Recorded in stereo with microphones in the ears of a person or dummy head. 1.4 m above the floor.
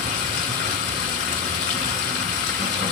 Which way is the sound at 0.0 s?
45° left (ahead or behind).